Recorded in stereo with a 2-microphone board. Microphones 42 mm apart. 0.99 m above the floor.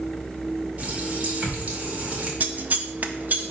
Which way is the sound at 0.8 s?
40° right (ahead or behind).